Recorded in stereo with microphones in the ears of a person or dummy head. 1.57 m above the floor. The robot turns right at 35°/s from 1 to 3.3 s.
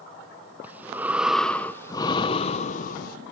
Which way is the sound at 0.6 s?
10° right.